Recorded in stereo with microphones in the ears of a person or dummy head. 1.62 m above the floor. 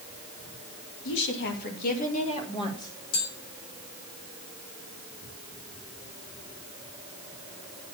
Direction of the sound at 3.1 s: 60° left (ahead or behind).